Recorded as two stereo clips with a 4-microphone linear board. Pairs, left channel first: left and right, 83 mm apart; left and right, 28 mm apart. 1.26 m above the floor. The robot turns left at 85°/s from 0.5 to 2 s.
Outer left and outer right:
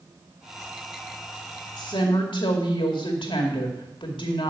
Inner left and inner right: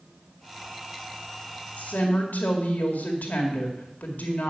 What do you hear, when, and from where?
1.8 s a woman speaking: 60° left (ahead or behind), 2 m; by 4.5 s 80° left, 2 m